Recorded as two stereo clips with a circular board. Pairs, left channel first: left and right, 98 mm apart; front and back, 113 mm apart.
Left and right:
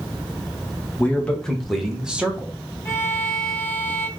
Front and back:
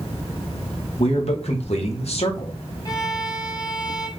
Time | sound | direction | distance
1.0 | a man speaking | 15° left | 1.4 m
2.9 | a violin | 35° left | 0.9 m